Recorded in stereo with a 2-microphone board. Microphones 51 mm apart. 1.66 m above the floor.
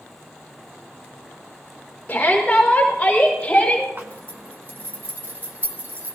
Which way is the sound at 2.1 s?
20° left (ahead or behind).